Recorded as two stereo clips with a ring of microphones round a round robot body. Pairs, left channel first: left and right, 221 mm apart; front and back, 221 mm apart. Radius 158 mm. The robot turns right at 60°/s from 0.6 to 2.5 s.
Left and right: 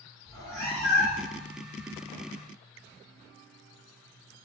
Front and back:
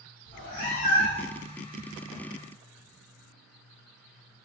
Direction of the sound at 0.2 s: 10° left.